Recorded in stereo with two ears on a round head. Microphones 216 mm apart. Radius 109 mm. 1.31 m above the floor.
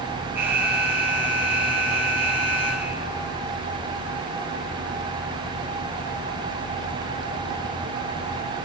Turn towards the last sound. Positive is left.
turn(degrees=-10)  # may be behind; listen again after turning